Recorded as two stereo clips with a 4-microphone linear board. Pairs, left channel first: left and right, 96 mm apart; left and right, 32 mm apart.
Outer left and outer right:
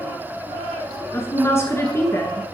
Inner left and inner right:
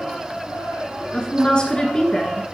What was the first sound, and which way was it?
A woman speaking, 30° left (ahead or behind).